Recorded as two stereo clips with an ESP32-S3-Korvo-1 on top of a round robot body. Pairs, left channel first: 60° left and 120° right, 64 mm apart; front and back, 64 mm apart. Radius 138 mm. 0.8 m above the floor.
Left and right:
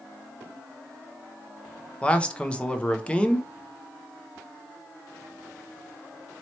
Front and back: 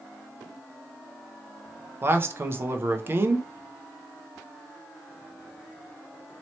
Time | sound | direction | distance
2.0 | a man speaking | 130° left | 0.8 m